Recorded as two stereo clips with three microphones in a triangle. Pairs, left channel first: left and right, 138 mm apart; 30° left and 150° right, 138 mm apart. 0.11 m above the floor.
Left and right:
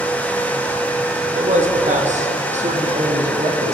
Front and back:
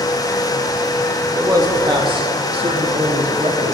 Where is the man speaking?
85° right, 3 m; by 3.7 s 120° right, 5 m.